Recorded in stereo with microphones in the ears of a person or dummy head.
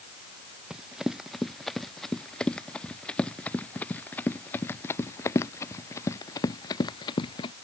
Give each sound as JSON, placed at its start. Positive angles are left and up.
{"t": 0.7, "sound": "running footsteps", "side_deg": 0}